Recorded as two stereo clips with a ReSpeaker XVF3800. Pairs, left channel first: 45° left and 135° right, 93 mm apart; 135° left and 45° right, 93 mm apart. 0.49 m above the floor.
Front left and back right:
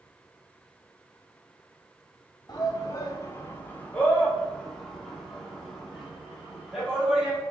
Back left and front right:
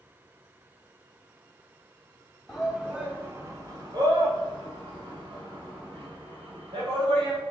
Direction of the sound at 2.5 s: 45° left.